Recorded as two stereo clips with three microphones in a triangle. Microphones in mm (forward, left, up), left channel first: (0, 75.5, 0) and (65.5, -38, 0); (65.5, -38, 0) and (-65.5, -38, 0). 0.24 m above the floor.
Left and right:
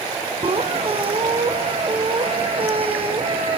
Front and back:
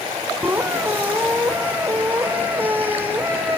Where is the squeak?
105° right, 3.5 m.